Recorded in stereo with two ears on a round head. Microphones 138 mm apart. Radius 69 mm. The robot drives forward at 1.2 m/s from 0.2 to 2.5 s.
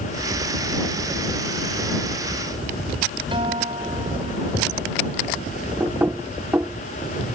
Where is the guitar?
35° right (ahead or behind).